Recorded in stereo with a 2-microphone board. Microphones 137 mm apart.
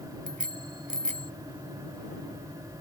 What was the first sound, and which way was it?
A bicycle bell, 70° right (ahead or behind).